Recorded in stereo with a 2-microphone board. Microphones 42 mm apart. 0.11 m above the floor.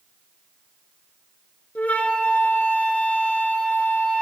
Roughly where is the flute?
Left.